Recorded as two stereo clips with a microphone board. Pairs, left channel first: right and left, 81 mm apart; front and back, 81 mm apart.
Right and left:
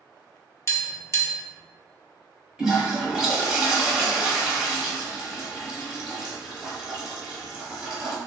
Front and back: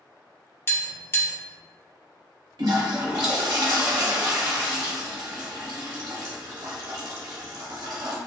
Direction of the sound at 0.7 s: 50° right.